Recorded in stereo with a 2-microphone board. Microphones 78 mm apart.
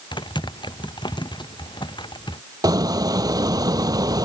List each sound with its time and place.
0.1 s typing on a keyboard: 85° left
2.6 s a squeak: 55° right (ahead or behind)